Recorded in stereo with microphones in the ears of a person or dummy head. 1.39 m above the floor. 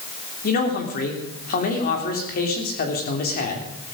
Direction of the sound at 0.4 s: 45° left (ahead or behind).